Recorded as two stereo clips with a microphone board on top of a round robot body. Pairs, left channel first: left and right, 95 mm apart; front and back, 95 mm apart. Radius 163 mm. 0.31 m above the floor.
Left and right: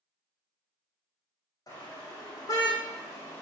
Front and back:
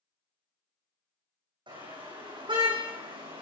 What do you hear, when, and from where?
1.7 s a car horn: 145° left, 9.5 m; by 3.4 s 150° left, 9 m